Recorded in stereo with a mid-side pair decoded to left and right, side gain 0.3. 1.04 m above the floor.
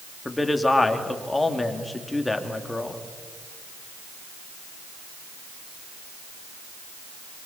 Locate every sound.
0.2 s a man speaking: 25° left, 2.5 m